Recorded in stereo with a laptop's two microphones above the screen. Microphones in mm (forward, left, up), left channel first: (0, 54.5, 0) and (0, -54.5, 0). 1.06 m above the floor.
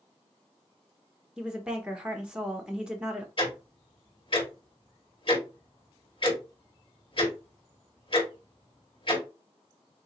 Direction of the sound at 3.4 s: 50° left (ahead or behind).